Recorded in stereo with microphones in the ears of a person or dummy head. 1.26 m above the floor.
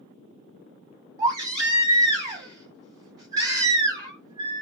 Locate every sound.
1.2 s a baby crying: 30° right (ahead or behind), 1.1 m